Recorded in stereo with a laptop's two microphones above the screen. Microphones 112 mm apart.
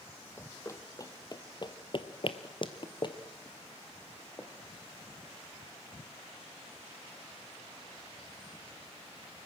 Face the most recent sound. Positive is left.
turn(degrees=25)  # may be behind; listen again after turning